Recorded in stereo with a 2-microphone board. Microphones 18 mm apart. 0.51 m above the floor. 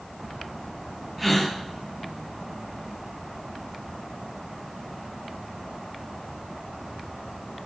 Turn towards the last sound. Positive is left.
turn(degrees=5)  # may be behind; listen again after turning